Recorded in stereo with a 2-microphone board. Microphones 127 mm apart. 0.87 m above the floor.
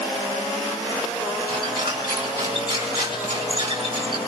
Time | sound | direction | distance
1.5 | a squeak | 35° right (ahead or behind) | 5 m